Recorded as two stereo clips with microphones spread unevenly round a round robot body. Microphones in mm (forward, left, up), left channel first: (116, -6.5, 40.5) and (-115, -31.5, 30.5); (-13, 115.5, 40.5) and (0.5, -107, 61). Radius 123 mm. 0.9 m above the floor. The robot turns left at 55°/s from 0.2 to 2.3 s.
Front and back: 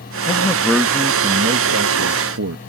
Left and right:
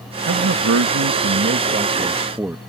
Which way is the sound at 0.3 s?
55° right.